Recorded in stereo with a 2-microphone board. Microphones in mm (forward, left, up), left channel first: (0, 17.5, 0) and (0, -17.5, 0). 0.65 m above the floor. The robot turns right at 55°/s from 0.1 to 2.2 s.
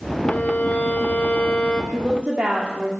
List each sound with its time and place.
0.2 s a violin: 55° left, 1.5 m; by 1.8 s 145° left, 1.5 m
1.9 s a woman speaking: 30° right (ahead or behind), 1.6 m; by 2.9 s 40° right (ahead or behind), 1.6 m